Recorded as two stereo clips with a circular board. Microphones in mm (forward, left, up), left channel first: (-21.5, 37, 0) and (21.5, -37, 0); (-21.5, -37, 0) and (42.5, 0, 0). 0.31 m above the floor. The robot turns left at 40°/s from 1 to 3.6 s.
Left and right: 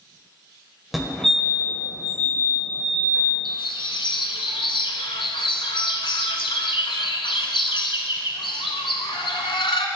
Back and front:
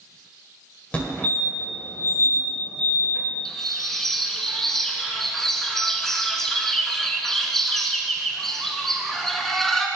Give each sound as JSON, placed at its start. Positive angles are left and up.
{"t": 0.9, "sound": "a fire alarm", "azimuth_deg": -145, "distance_m": 1.8}
{"t": 3.5, "sound": "a bird", "azimuth_deg": 130, "distance_m": 1.0}